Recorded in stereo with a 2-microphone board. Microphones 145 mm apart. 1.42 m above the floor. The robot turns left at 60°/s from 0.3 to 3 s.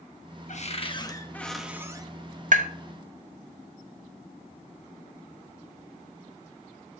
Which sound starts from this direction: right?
Tapping, at 2.5 s.